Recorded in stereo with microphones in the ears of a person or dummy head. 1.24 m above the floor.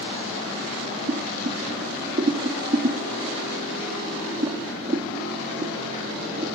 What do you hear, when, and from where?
1.1 s boiling: 25° right (ahead or behind), 1.0 m